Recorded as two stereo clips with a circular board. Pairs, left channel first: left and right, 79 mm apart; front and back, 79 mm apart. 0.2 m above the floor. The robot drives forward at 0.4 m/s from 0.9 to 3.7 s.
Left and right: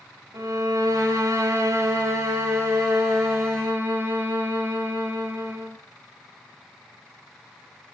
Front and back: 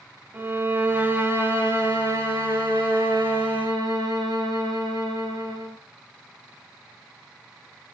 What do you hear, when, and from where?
0.3 s a violin: 125° right, 1.4 m; by 5.8 s 150° right, 2 m